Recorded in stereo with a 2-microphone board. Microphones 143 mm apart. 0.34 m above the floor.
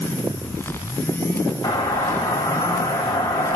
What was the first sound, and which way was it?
A doorbell, 25° left (ahead or behind).